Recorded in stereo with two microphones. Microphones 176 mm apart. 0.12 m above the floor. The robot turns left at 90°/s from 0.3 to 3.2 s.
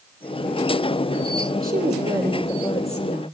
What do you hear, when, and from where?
1.6 s a woman speaking: 105° right, 4.5 m; by 3.2 s 110° left, 4.5 m